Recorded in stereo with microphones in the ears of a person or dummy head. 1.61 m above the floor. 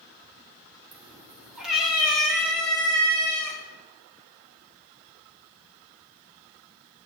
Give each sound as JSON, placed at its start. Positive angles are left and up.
{"t": 0.9, "sound": "a cat meowing", "side_deg": -5, "distance_m": 2.0}